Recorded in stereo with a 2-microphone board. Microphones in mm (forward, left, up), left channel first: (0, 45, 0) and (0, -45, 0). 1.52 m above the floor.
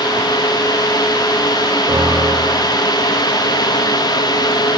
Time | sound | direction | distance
1.9 | a piano | 45° right (ahead or behind) | 9 m